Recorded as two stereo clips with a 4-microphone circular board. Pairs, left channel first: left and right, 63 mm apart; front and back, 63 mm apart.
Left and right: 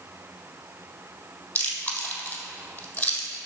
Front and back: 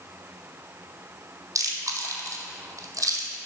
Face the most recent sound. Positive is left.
turn(degrees=150)